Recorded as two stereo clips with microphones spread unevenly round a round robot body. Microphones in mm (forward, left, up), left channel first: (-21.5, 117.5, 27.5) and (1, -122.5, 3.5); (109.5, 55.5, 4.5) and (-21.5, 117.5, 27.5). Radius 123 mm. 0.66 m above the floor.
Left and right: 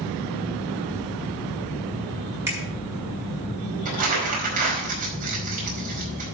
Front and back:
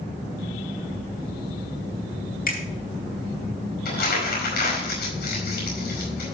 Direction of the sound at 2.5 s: 5° right.